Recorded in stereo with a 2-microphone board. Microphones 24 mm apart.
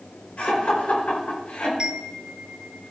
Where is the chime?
35° right (ahead or behind), 0.8 m.